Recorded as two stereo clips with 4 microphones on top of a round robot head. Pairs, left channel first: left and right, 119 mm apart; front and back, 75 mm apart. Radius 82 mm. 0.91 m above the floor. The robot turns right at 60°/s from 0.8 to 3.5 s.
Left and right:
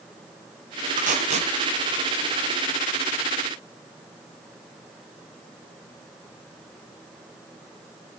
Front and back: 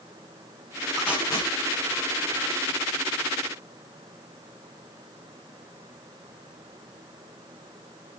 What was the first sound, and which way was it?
Tape being pulled, 85° right.